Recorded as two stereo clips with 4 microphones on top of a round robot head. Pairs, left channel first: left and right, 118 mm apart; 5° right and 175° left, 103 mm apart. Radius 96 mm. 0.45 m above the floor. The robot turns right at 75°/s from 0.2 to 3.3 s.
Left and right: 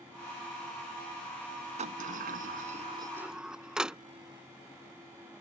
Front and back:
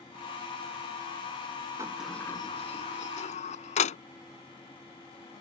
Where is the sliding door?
120° right; by 4.0 s 5° right.